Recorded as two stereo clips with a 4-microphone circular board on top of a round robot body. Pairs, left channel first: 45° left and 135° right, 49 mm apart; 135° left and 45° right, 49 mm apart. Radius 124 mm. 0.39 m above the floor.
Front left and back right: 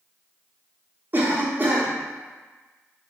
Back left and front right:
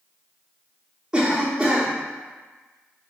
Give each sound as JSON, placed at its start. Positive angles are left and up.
{"t": 1.1, "sound": "a cough", "azimuth_deg": -115, "distance_m": 1.0}